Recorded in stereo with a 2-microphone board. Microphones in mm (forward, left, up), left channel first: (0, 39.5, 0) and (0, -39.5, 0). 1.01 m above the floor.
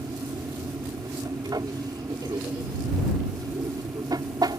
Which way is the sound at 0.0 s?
55° right (ahead or behind).